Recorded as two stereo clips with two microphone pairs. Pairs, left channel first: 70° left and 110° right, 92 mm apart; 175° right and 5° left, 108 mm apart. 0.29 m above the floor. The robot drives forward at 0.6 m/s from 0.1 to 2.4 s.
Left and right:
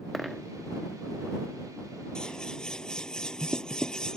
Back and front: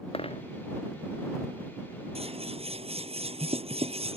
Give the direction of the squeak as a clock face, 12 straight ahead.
No squeak in this recording.